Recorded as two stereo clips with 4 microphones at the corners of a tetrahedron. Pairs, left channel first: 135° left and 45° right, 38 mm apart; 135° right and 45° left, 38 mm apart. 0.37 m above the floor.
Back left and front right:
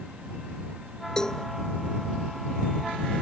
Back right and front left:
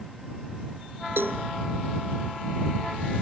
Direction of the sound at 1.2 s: 60° left.